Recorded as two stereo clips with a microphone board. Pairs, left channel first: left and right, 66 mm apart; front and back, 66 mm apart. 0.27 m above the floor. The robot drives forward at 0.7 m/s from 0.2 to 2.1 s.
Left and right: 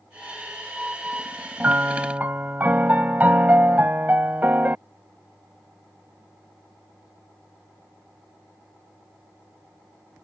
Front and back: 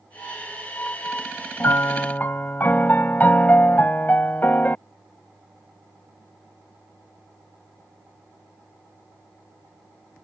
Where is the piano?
30° right; by 4.8 s 45° right.